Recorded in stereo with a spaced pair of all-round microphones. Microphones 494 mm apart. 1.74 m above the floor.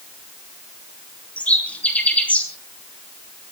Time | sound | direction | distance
1.4 | a bird | 5° left (ahead or behind) | 3 m